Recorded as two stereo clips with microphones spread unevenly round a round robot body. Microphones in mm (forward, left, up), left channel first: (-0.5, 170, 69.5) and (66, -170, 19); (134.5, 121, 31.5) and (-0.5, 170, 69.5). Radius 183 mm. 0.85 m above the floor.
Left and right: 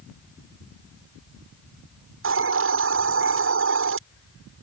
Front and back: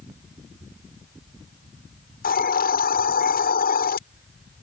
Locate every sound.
2.2 s a hiss: 25° right